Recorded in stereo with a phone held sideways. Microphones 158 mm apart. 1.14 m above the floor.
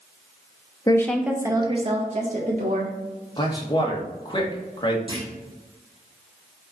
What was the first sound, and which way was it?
A woman speaking, 25° left (ahead or behind).